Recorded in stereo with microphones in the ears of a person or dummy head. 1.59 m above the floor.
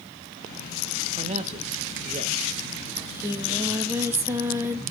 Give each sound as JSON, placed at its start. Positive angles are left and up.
{"t": 1.1, "sound": "a man speaking", "side_deg": -35, "distance_m": 1.2}
{"t": 3.0, "sound": "singing", "side_deg": -15, "distance_m": 1.6}